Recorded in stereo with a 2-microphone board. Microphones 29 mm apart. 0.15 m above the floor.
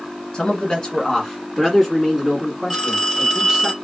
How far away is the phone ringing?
About 1.6 m.